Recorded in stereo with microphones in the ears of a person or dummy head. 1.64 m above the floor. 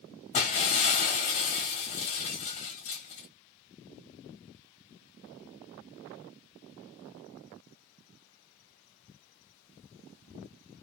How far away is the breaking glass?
About 1.5 m.